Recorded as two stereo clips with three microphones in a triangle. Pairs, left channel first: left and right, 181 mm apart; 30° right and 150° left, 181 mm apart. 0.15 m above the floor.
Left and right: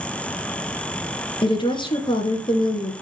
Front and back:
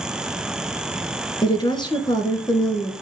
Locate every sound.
1.4 s a woman speaking: 30° left, 2 m